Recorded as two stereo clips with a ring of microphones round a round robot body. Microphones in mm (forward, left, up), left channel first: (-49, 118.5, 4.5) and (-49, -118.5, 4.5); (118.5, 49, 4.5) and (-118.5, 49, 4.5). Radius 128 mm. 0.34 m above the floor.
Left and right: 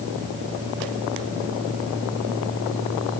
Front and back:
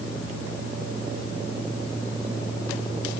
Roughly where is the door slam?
I don't hear a door slam.